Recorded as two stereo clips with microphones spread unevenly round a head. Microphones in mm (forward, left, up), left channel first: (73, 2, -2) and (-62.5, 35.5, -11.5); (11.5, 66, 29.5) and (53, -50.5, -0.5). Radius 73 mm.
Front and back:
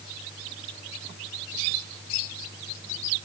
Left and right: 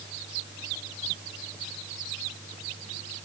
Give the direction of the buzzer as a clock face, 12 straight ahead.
I don't hear a buzzer.